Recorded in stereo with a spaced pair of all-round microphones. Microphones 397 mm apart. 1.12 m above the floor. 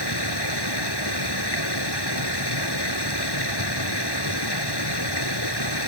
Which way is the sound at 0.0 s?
80° left.